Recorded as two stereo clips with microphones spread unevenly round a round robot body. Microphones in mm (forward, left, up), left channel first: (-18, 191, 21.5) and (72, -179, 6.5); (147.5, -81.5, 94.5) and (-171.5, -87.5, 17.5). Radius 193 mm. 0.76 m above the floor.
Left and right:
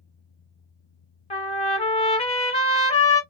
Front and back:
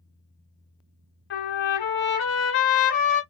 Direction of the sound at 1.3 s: 35° left.